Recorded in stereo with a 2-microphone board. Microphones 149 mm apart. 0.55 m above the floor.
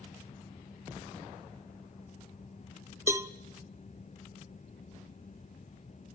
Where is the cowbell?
20° right (ahead or behind), 0.6 m.